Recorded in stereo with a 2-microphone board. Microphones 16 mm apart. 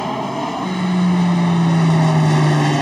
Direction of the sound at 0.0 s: 15° left (ahead or behind).